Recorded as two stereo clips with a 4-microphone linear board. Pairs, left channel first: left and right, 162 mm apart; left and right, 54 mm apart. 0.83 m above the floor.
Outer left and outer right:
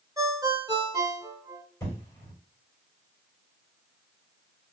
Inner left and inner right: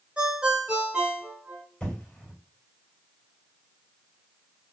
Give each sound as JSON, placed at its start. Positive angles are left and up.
{"t": 0.2, "sound": "a ringtone", "side_deg": -20, "distance_m": 1.2}
{"t": 1.8, "sound": "an explosion", "side_deg": 20, "distance_m": 2.5}